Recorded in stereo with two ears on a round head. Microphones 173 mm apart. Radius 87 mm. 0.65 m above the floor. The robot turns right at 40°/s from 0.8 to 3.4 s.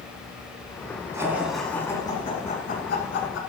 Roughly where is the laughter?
Centre.